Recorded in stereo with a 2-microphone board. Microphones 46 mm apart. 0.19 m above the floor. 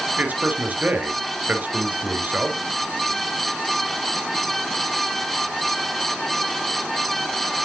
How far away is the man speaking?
About 3 m.